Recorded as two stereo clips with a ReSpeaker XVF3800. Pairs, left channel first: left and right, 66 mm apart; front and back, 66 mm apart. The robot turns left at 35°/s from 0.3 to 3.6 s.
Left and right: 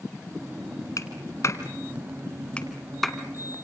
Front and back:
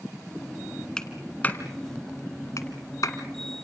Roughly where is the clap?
Left.